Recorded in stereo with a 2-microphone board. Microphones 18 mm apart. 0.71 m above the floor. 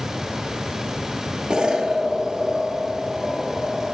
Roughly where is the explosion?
Right.